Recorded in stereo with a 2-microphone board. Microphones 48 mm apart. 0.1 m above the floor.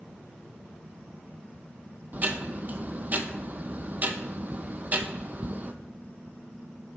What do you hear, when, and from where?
2.1 s ticking: 35° right (ahead or behind), 0.5 m